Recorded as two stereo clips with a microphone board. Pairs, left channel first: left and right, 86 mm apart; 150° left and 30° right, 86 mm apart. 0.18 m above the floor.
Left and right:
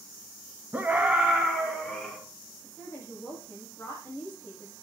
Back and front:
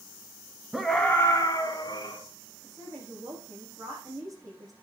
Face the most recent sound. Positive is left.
turn(degrees=20)